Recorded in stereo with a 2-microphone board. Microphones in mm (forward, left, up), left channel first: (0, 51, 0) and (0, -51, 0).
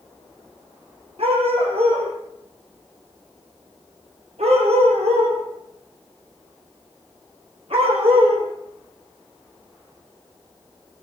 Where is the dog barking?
75° right (ahead or behind), 8.5 m; by 8.5 s 65° right (ahead or behind), 8.5 m.